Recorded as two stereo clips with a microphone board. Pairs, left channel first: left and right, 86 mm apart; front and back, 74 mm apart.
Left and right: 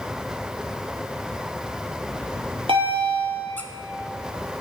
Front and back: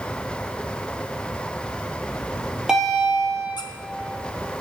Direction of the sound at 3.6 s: 15° left.